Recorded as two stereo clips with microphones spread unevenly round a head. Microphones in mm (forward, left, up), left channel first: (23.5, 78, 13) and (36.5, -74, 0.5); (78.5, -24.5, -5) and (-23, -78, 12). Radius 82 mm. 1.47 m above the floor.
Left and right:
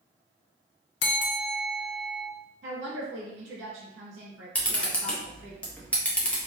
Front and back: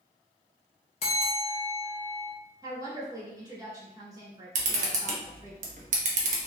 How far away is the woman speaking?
About 1.6 m.